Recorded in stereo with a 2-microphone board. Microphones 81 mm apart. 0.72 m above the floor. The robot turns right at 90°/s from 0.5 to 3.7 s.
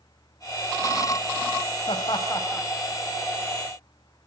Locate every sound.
1.9 s laughter: 85° left, 3.5 m; by 2.7 s 15° left (ahead or behind), 3.5 m